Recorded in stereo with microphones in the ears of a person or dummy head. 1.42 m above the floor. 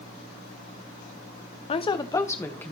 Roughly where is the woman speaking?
Left.